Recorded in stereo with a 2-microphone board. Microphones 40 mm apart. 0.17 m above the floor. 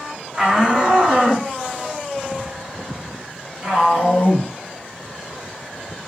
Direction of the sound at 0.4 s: 25° right (ahead or behind).